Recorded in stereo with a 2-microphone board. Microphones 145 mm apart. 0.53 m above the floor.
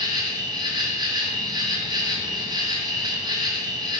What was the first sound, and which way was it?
An insect, 30° right (ahead or behind).